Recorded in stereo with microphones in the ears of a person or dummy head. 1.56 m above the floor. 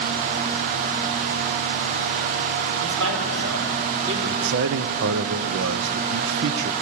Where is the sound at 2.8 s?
80° right, 4.5 m; by 4.2 s 70° right (ahead or behind), 4.5 m.